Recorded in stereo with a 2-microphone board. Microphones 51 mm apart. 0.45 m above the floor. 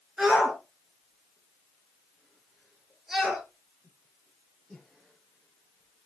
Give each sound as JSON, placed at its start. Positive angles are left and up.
{"t": 0.2, "sound": "a shout", "side_deg": -15, "distance_m": 5.5}